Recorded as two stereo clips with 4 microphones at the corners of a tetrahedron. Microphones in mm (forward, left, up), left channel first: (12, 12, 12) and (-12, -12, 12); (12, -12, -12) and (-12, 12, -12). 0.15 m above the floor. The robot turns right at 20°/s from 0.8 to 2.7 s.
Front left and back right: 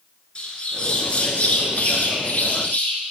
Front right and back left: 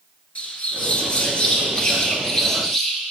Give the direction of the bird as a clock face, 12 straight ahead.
12 o'clock.